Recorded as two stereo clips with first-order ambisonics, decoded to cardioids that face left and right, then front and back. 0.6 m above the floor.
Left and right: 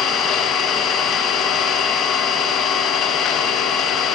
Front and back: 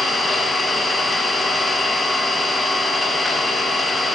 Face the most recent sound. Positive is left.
turn(degrees=80)